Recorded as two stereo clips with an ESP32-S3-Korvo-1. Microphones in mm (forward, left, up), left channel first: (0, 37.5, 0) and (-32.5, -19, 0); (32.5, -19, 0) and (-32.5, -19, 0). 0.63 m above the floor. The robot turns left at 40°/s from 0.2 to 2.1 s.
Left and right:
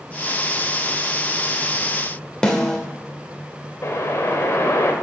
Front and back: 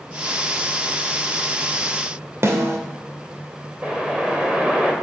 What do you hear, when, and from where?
2.4 s a snare drum: 140° left, 2 m
3.8 s a whoosh: 110° left, 2.5 m